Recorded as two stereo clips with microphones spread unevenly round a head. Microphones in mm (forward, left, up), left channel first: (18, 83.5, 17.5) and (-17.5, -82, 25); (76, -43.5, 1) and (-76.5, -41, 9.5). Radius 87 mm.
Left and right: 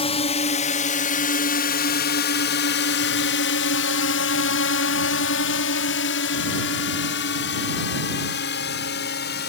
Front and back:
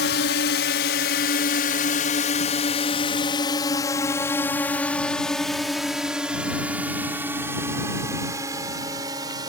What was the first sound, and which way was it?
A drone, 20° left.